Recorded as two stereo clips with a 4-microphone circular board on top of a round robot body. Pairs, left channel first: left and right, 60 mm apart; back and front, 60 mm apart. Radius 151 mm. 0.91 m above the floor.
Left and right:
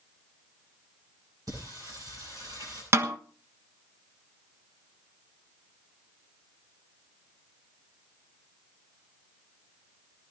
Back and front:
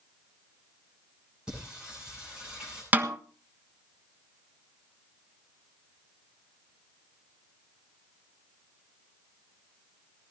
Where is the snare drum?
60° right, 1.6 m.